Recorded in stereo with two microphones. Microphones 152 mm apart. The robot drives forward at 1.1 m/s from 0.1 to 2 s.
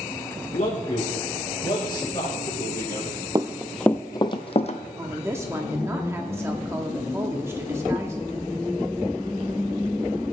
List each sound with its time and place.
0.5 s a man speaking: 55° left (ahead or behind), 1.5 m; by 3.2 s 30° left (ahead or behind), 2.5 m
3.4 s running footsteps: 25° right (ahead or behind), 0.6 m; by 4.8 s 50° left (ahead or behind), 1.0 m
5.0 s a woman speaking: 15° right (ahead or behind), 0.8 m